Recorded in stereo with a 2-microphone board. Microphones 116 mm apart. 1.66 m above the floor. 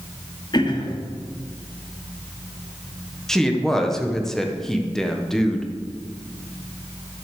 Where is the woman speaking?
5° left (ahead or behind), 1.4 m.